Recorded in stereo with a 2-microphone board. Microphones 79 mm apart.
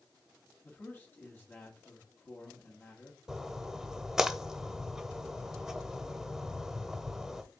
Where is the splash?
5° right (ahead or behind), 0.5 m.